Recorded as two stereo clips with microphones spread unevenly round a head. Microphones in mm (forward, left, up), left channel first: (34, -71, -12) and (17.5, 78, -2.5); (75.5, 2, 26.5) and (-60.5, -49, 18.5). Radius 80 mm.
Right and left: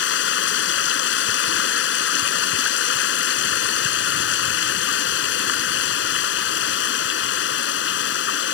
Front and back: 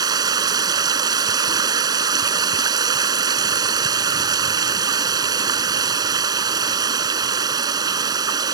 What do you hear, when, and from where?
0.0 s running water: 95° right